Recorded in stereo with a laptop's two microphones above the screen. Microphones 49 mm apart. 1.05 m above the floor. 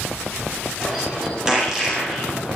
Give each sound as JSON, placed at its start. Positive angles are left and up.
{"t": 0.8, "sound": "a bird", "side_deg": -15, "distance_m": 7.5}